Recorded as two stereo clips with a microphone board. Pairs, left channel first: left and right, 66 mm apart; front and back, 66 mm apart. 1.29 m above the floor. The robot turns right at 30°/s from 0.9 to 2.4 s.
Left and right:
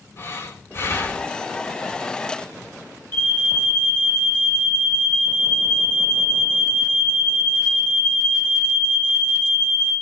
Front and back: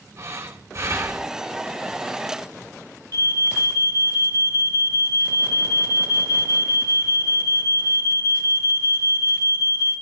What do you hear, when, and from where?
0.2 s breathing: 135° left, 3.5 m; by 1.3 s 150° left, 3.5 m
3.1 s an alarm: 150° left, 4.5 m